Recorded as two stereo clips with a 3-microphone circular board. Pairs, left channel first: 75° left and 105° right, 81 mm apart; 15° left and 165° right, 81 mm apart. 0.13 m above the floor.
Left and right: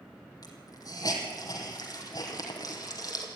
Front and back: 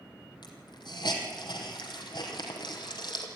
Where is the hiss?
35° left, 3 m.